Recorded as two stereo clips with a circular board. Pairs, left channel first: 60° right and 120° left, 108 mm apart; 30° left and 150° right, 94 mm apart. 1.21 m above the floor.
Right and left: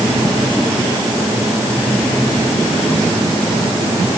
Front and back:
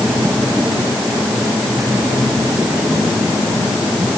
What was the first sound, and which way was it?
Only background noise.